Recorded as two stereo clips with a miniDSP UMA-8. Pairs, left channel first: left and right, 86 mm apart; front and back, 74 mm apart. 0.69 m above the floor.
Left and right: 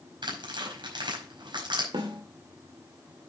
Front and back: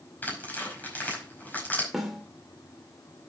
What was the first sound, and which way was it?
Tearing paper, 65° right.